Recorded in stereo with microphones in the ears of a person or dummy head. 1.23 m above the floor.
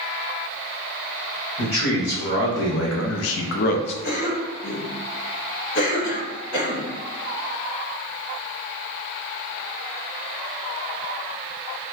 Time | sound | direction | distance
1.6 | a man speaking | 55° left (ahead or behind) | 1.4 m
4.0 | a cough | 40° left (ahead or behind) | 1.2 m